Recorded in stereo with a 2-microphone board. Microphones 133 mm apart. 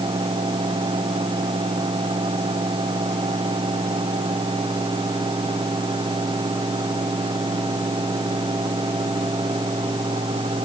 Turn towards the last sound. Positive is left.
No sound to turn to.